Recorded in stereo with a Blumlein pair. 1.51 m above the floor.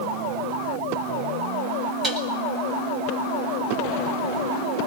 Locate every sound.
2.0 s dishes clattering: 25° right, 5 m